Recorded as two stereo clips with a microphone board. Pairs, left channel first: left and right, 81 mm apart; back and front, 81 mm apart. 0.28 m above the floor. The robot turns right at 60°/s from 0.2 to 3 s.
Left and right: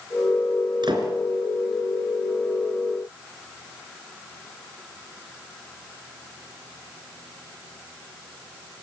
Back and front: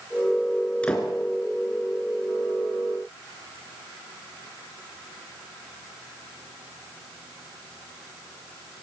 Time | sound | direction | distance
0.8 | a door slam | 105° right | 3.5 m